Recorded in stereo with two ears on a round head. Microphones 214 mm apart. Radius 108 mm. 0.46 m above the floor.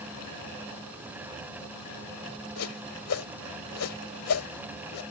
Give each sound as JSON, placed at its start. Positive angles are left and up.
{"t": 2.6, "sound": "a whoosh", "side_deg": 70}